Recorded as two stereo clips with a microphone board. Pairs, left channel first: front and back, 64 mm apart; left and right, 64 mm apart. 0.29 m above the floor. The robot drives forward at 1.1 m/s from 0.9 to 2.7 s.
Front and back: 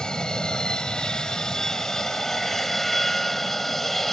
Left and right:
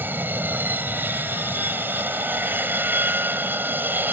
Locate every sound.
0.0 s an aircraft: 70° right; by 4.1 s 85° right